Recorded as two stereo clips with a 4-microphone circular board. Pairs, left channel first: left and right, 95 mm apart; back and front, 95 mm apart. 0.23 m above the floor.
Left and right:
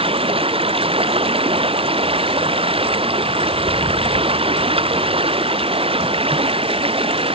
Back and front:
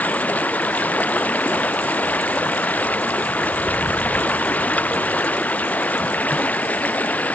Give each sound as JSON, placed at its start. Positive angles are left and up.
{"t": 0.0, "sound": "running water", "azimuth_deg": -105}